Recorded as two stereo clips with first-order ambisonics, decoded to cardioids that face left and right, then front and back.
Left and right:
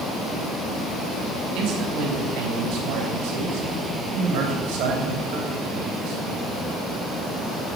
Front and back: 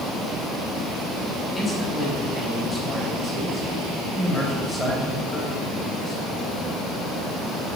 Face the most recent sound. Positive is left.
turn(degrees=-80)